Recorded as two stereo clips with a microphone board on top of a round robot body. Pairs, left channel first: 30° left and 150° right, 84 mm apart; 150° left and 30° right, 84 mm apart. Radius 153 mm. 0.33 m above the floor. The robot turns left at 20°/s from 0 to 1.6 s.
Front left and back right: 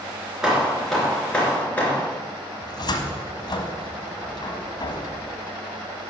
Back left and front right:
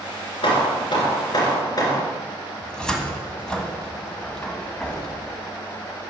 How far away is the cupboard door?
About 1.5 m.